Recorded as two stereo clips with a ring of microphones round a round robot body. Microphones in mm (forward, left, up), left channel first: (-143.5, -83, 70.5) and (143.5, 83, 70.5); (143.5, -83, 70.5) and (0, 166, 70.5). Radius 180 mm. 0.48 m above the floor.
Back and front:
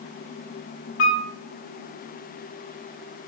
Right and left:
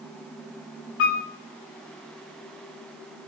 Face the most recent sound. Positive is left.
turn(degrees=-105)